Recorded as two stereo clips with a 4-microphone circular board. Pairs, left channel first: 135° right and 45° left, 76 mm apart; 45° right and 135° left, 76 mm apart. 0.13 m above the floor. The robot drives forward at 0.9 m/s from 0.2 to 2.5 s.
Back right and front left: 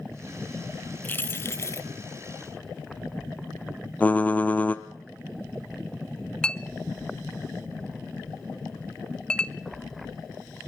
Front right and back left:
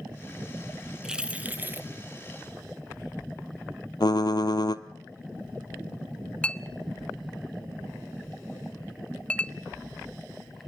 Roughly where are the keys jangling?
Behind right.